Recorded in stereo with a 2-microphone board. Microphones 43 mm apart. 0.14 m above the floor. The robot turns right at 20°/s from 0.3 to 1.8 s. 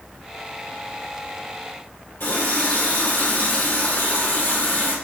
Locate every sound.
2.2 s a running tap: 60° left (ahead or behind), 2.5 m